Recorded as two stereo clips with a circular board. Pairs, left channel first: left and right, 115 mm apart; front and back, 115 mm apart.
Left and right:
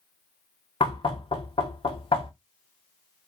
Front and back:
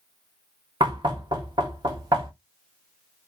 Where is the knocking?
135° left, 0.8 m.